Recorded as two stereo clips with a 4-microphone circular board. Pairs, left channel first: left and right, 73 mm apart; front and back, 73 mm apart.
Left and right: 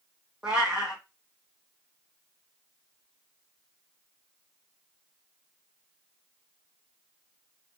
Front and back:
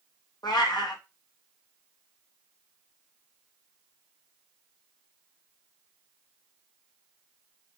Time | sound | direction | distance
0.4 | a cat meowing | 10° right | 1.9 m